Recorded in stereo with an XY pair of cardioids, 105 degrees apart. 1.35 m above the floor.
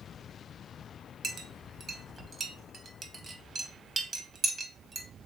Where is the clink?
40° right, 0.8 m.